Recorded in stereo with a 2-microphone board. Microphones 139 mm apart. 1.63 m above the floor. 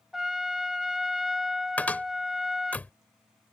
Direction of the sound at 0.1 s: Centre (ahead or behind).